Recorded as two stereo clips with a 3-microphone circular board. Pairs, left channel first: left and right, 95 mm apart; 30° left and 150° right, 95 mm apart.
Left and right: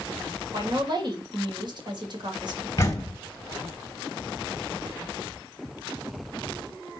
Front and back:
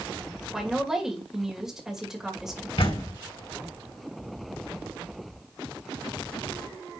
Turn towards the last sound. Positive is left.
turn(degrees=35)